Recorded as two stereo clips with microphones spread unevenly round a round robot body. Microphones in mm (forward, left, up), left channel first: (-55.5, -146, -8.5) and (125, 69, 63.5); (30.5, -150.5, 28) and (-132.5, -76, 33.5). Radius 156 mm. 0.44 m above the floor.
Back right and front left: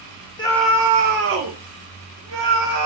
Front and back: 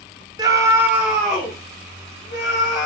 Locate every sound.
0.4 s a scream: 150° right, 0.8 m; by 2.9 s 50° left, 1.9 m